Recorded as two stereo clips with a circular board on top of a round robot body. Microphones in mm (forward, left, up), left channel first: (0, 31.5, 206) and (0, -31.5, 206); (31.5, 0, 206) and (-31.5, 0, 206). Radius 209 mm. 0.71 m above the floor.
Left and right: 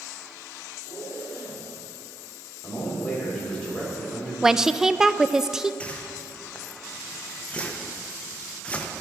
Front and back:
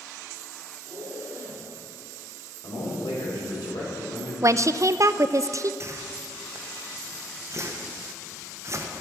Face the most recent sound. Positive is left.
turn(degrees=155)